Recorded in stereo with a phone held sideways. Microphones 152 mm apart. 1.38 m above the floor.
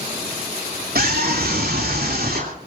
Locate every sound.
0.9 s a scream: 75° right (ahead or behind), 3 m